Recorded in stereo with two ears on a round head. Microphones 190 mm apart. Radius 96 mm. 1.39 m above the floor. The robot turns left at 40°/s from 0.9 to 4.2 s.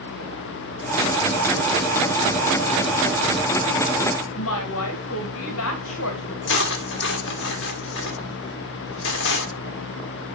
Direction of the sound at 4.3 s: 70° left (ahead or behind).